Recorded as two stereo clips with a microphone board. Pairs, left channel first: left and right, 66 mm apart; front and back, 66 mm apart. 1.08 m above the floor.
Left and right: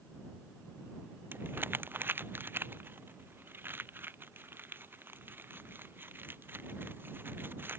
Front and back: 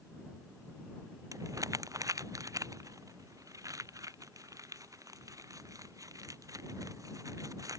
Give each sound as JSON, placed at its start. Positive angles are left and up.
{"t": 1.3, "sound": "crumpling", "azimuth_deg": -150}